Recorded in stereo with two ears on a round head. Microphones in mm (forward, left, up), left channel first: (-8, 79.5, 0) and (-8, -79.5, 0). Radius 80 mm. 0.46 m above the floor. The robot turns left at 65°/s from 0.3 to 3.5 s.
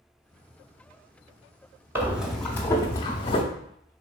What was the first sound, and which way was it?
Breathing, 15° right (ahead or behind).